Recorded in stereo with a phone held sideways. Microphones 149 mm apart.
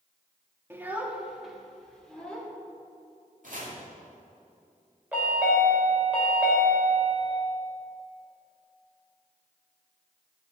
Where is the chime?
10° right (ahead or behind), 3.5 m.